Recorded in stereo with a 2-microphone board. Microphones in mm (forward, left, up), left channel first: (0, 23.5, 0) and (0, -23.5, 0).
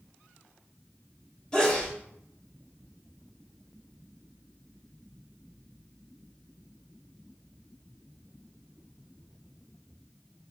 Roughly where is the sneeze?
Centre.